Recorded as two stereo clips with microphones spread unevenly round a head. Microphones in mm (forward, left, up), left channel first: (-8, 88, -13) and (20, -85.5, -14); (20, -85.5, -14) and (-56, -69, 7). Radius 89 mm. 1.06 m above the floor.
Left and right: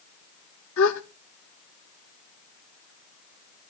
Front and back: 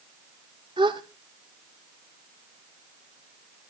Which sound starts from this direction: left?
A gasp, at 0.8 s.